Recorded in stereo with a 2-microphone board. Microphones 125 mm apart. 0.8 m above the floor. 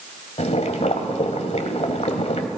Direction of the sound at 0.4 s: 65° left (ahead or behind).